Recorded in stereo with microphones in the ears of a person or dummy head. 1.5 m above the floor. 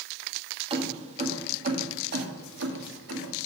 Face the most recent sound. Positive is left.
turn(degrees=-70)  # may be behind; listen again after turning